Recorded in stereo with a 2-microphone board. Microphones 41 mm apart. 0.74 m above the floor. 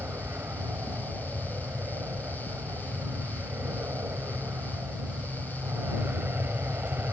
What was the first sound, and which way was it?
An aircraft, 65° right (ahead or behind).